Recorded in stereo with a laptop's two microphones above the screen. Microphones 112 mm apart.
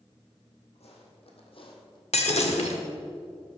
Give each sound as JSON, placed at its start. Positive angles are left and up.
{"t": 0.8, "sound": "footsteps", "side_deg": 70, "distance_m": 3.0}
{"t": 2.1, "sound": "breaking glass", "side_deg": 70, "distance_m": 1.4}